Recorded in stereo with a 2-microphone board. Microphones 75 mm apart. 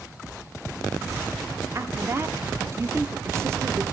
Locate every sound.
1.8 s a woman speaking: 35° right (ahead or behind), 1.0 m